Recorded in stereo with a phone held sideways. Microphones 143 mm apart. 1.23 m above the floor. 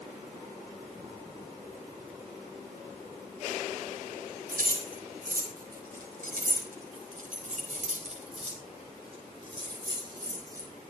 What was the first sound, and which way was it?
Keys jangling, 80° right.